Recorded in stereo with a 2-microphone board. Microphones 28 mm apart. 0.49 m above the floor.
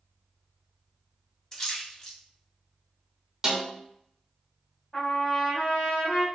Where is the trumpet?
30° left (ahead or behind), 0.9 m.